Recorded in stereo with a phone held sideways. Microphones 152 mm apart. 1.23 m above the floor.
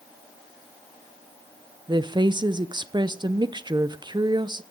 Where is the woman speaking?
30° right (ahead or behind), 0.7 m.